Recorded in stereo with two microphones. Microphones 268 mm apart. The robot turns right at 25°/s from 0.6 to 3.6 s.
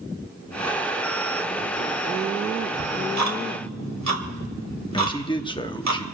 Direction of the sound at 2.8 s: 75° right (ahead or behind).